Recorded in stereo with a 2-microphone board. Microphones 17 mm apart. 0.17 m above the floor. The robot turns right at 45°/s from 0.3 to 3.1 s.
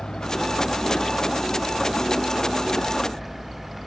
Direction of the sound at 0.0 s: 45° left (ahead or behind).